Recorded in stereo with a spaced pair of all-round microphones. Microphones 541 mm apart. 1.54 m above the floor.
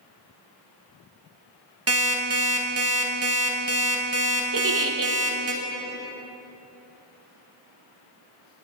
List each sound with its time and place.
1.9 s an alarm clock: 25° right (ahead or behind), 0.8 m
4.5 s a giggle: 40° right (ahead or behind), 0.5 m